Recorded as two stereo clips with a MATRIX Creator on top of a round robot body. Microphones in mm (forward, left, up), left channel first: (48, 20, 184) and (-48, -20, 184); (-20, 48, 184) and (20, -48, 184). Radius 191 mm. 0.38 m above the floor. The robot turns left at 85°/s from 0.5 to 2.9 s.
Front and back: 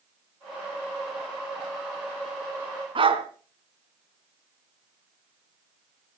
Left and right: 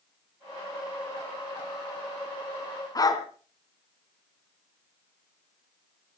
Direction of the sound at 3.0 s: 165° left.